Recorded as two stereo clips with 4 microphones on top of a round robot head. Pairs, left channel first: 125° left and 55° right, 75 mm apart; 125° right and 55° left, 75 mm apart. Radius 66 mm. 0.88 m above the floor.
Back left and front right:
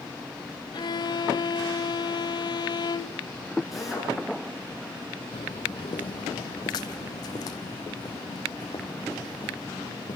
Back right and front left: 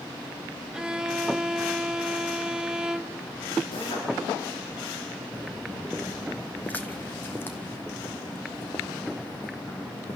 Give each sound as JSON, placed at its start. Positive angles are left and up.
{"t": 0.7, "sound": "a violin", "azimuth_deg": 135, "distance_m": 1.2}
{"t": 3.7, "sound": "a drill", "azimuth_deg": -140, "distance_m": 9.0}
{"t": 5.3, "sound": "footsteps", "azimuth_deg": 140, "distance_m": 1.3}